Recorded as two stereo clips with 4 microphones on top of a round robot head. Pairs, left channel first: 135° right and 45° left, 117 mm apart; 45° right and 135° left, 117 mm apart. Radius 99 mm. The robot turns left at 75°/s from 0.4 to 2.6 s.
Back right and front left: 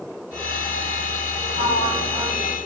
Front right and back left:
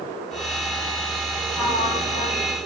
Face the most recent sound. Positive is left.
turn(degrees=-55)